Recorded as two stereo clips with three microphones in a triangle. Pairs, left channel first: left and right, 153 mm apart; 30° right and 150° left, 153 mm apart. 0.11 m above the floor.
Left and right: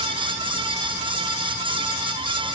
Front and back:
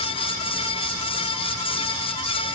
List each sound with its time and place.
Only background noise.